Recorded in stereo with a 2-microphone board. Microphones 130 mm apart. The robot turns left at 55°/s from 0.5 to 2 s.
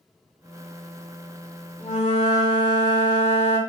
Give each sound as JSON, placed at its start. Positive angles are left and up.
{"t": 1.8, "sound": "a flute", "side_deg": 80, "distance_m": 1.1}